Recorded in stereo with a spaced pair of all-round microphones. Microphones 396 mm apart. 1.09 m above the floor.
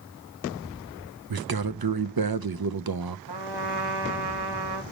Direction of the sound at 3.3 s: 80° right.